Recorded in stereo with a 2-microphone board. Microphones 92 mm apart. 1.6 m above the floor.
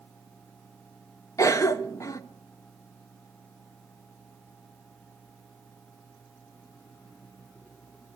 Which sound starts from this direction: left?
A cough, at 1.4 s.